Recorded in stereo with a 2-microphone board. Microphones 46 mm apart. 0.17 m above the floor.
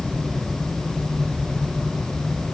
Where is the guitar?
No guitar in this recording.